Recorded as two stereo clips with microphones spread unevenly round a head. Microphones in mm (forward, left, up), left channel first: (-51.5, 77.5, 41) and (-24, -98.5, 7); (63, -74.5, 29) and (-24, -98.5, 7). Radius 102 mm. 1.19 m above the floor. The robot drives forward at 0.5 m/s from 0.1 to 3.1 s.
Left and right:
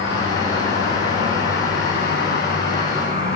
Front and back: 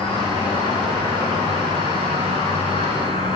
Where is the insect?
120° left, 4.5 m; by 3.4 s 135° left, 5 m.